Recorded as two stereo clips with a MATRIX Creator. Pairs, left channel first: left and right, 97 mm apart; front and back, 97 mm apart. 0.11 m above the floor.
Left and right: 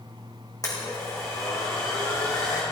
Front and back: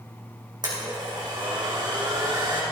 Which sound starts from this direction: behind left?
A blender, at 0.6 s.